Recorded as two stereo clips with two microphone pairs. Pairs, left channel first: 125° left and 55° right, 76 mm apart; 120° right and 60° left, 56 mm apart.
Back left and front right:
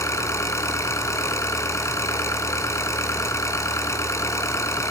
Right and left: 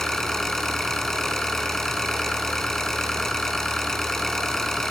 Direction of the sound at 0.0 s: 160° left.